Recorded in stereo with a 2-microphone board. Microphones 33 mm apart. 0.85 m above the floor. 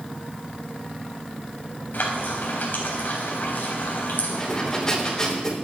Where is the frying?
60° left (ahead or behind), 4 m.